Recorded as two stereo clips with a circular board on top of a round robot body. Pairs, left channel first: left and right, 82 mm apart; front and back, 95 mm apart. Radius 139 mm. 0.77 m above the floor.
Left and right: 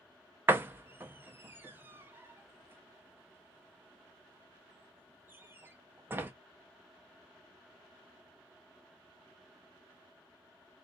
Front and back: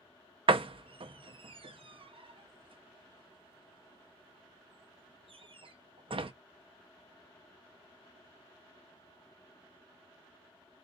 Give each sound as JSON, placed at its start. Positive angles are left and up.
{"t": 0.5, "sound": "a door slam", "azimuth_deg": -155, "distance_m": 0.7}